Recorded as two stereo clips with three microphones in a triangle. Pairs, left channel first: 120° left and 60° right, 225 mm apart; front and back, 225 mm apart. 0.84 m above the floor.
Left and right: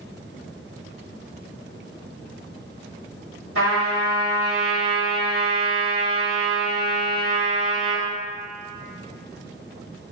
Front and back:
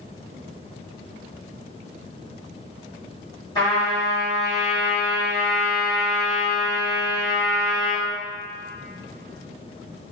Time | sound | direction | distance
3.5 | a trumpet | 70° right | 2.0 m